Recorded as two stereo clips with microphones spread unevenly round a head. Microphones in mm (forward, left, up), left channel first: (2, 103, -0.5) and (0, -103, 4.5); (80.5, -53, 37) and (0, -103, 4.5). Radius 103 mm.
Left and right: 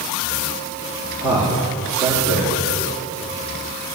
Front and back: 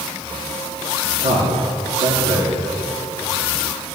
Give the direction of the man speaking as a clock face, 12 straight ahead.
5 o'clock.